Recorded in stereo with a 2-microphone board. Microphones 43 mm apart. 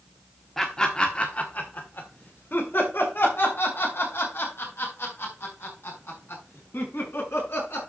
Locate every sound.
0.6 s laughter: 10° left (ahead or behind), 1.2 m; by 7.9 s 75° left (ahead or behind), 6.5 m